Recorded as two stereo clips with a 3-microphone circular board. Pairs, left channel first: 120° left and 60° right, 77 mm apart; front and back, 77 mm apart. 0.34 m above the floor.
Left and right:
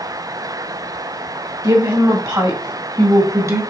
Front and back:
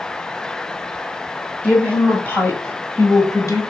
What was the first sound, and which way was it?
A woman speaking, 75° right.